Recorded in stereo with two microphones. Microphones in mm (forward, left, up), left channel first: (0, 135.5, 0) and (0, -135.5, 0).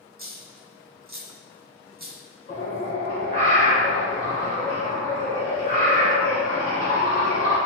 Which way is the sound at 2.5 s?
30° left (ahead or behind).